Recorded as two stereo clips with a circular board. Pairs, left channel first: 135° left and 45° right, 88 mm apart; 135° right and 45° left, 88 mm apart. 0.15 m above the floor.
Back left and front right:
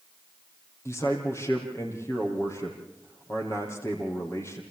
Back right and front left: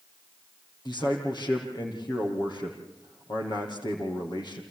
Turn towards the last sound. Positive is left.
turn(degrees=-170)